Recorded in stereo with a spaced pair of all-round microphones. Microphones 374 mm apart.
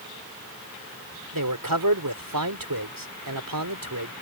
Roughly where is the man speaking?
Right.